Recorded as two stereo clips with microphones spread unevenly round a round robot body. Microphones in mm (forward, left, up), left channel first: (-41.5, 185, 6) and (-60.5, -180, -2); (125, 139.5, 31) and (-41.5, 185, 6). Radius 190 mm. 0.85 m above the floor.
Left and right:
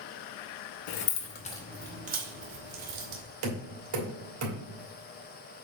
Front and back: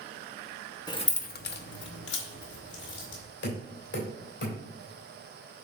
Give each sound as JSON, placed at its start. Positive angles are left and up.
{"t": 0.9, "sound": "keys jangling", "azimuth_deg": 55, "distance_m": 0.9}
{"t": 3.4, "sound": "knocking", "azimuth_deg": -50, "distance_m": 2.5}